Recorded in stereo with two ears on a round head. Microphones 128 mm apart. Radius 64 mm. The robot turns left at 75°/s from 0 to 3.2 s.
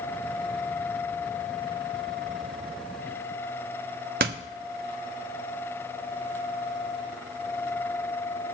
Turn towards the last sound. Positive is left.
turn(degrees=-70)  # may be behind; listen again after turning